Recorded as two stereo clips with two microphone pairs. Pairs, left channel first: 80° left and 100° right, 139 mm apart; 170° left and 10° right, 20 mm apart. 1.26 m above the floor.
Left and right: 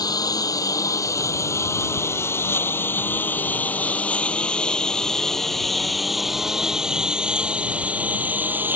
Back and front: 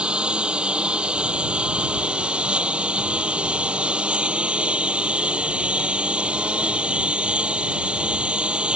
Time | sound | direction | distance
0.0 | a lawn mower | 20° left | ?